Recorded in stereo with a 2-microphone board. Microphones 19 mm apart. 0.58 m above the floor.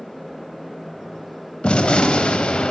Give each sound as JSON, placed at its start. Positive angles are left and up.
{"t": 1.6, "sound": "a gunshot", "side_deg": 75, "distance_m": 0.7}